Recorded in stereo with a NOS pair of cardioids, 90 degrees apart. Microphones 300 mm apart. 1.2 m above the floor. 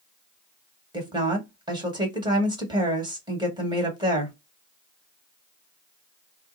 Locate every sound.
0.9 s a woman speaking: 15° right, 1.5 m